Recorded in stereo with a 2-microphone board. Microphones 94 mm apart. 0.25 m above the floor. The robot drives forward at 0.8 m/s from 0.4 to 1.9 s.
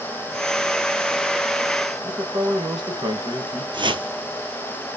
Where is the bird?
No bird in this recording.